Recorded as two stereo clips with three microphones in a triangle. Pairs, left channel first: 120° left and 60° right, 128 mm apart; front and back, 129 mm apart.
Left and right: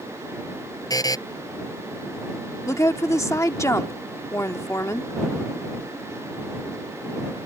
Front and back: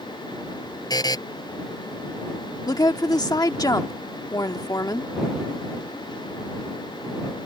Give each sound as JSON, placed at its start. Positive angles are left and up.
{"t": 0.9, "sound": "a buzzer", "azimuth_deg": 60}
{"t": 2.7, "sound": "a woman speaking", "azimuth_deg": 55}